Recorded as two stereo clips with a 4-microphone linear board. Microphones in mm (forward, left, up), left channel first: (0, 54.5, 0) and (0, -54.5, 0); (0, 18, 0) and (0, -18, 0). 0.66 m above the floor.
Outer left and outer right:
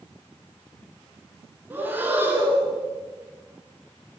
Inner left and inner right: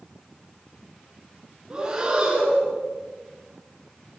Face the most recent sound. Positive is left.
turn(degrees=-20)  # may be behind; listen again after turning